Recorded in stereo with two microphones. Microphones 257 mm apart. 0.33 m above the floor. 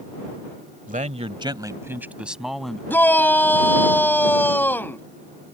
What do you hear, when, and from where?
0.9 s a man speaking: 30° right (ahead or behind); by 2.8 s centre (ahead or behind)
2.9 s a shout: 10° left (ahead or behind)